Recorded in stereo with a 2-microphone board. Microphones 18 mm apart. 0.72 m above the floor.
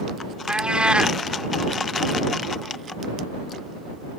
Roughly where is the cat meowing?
Right.